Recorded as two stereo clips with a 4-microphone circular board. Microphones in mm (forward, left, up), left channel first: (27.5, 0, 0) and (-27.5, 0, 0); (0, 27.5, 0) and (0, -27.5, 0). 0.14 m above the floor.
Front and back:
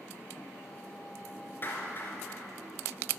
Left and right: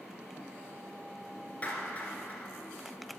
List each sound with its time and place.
1.6 s a clap: 35° left, 2.5 m